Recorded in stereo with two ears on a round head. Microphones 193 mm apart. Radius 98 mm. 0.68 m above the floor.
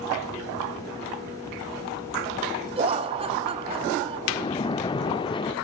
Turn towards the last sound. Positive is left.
turn(degrees=25)  # may be behind; listen again after turning